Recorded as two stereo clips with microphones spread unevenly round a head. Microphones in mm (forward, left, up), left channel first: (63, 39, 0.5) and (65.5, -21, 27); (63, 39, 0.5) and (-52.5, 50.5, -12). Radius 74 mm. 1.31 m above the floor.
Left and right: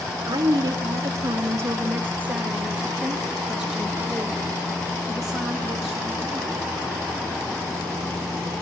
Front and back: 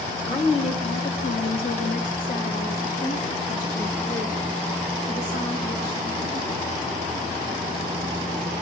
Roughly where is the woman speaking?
Right.